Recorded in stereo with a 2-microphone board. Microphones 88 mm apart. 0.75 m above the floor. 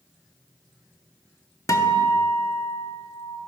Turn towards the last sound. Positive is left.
turn(degrees=40)  # may be behind; listen again after turning